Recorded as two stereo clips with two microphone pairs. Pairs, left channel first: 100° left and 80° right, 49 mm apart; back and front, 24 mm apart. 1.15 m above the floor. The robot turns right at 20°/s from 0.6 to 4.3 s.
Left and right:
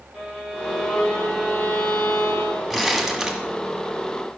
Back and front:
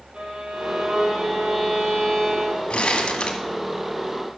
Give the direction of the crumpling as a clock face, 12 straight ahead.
6 o'clock.